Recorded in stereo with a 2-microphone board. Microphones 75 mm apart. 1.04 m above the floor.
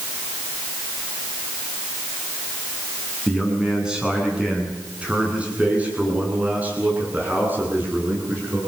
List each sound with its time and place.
3.3 s a man speaking: 5° right (ahead or behind), 8.5 m; by 8.6 s 25° right (ahead or behind), 11.5 m